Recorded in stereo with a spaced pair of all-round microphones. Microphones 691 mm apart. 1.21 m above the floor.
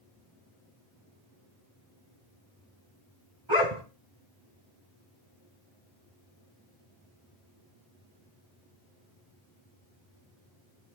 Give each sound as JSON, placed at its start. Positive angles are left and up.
{"t": 3.5, "sound": "a dog barking", "side_deg": -50, "distance_m": 3.0}